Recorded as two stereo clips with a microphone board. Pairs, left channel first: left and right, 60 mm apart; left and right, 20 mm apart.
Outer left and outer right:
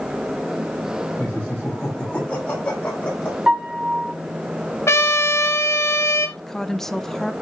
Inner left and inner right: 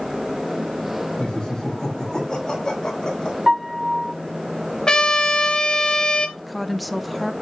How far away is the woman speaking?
About 0.7 m.